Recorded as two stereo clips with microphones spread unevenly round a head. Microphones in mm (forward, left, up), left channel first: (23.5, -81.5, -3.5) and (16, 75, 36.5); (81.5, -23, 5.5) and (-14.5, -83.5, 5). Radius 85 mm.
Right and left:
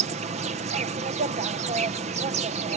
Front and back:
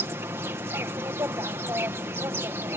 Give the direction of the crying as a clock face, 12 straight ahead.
I don't hear crying.